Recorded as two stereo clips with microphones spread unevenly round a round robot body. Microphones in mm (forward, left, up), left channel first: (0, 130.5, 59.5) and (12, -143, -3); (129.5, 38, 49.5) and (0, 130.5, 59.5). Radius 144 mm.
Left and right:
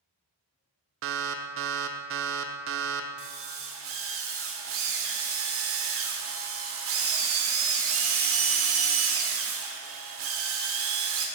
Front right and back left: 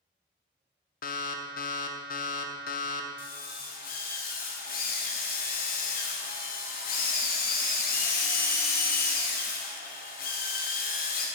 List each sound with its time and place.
1.0 s an alarm: 60° right, 0.6 m
3.2 s a drill: 60° right, 1.3 m